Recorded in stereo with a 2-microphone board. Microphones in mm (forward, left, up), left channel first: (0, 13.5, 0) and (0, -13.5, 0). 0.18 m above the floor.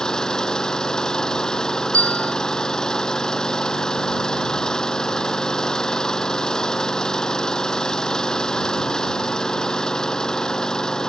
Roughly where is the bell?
Left.